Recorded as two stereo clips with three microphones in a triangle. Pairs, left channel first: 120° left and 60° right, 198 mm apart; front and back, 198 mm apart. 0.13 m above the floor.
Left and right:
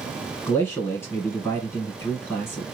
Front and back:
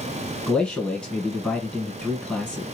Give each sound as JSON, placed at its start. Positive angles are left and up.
{"t": 0.5, "sound": "a man speaking", "azimuth_deg": 75, "distance_m": 1.5}